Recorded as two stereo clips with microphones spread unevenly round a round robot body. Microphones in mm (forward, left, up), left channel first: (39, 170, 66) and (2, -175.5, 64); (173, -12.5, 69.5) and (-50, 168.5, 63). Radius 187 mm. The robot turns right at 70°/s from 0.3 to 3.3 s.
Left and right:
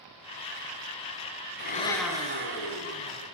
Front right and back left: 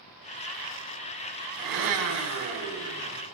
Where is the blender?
145° left, 2 m; by 3.2 s 100° right, 2 m.